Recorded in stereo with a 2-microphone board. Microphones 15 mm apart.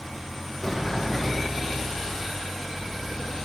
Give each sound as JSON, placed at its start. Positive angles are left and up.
{"t": 0.6, "sound": "a sliding door", "side_deg": 0, "distance_m": 2.5}